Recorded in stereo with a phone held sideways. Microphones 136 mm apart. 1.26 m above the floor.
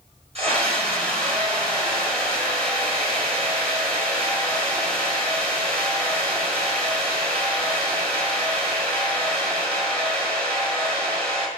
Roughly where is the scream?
Right.